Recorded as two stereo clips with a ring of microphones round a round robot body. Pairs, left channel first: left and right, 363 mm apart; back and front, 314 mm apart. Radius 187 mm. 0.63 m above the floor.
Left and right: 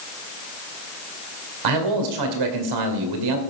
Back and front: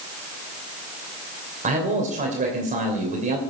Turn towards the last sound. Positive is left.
turn(degrees=-70)